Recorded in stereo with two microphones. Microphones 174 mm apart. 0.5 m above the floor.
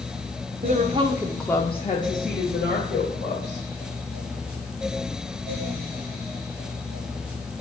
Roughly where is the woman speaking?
Right.